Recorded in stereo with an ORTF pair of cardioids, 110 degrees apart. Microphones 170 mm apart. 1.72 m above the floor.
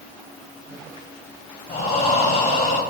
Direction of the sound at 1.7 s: 50° left.